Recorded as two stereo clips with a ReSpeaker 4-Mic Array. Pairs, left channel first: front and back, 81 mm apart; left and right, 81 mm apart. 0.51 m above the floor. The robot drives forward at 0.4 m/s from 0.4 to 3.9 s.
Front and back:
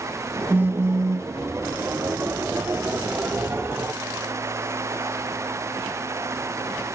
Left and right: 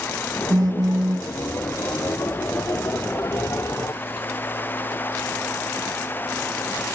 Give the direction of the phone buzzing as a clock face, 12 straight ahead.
4 o'clock.